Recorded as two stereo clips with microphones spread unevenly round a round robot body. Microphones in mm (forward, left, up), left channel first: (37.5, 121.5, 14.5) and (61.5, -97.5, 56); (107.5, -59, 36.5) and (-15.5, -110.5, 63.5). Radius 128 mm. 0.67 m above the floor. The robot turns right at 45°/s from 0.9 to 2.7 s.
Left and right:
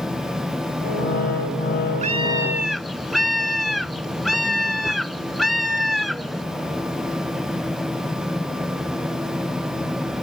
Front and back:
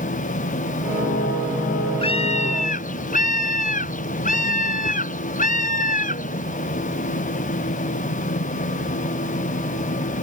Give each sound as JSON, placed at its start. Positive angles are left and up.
{"t": 2.0, "sound": "a scream", "azimuth_deg": -25}